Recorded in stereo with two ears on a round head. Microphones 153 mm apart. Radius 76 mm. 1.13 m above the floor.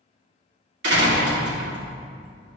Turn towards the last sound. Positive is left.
turn(degrees=-70)  # may be behind; listen again after turning